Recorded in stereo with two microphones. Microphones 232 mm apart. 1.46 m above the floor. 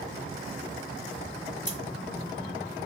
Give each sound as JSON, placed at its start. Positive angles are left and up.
{"t": 1.7, "sound": "scissors", "side_deg": 35, "distance_m": 2.0}